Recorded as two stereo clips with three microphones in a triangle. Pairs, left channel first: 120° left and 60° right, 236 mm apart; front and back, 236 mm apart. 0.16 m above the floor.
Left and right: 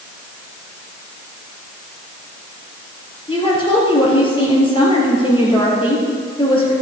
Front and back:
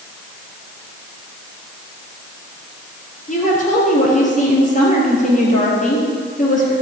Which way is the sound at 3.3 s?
55° left.